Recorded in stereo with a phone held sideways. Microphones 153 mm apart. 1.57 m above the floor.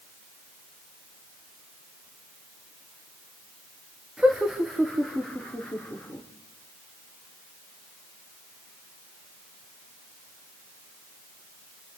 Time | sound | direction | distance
4.2 | laughter | 5° right (ahead or behind) | 3 m